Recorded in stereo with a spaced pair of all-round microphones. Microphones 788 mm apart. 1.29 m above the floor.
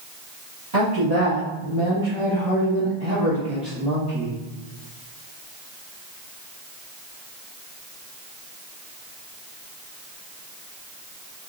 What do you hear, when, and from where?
0.7 s a woman speaking: 55° right (ahead or behind), 1.9 m; by 4.4 s 15° left (ahead or behind), 1.5 m